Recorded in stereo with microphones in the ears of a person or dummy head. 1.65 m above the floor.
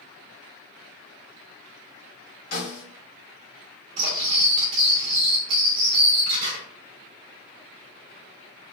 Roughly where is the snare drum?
Left.